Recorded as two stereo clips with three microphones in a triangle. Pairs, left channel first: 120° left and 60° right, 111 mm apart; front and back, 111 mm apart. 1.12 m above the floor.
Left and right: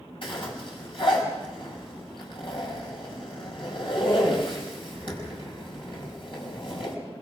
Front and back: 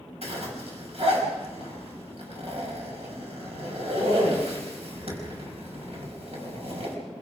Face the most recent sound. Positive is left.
turn(degrees=160)